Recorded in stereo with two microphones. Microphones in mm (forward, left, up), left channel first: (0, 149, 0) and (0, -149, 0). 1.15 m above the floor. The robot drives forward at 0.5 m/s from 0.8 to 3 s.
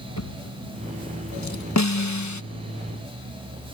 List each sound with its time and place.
0.2 s a drawer: 75° left (ahead or behind); by 1.6 s 65° left (ahead or behind)
1.8 s a snare drum: 65° left (ahead or behind); by 2.4 s 70° left (ahead or behind)